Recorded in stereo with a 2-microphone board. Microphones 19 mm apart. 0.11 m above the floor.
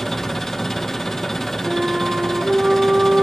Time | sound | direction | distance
0.0 | an engine running | 25° left (ahead or behind) | 1.8 m
1.6 | a flute | 50° right (ahead or behind) | 5 m